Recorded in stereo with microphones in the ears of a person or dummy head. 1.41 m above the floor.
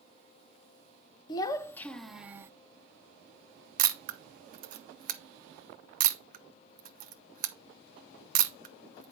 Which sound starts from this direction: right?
A camera shutter, at 3.8 s.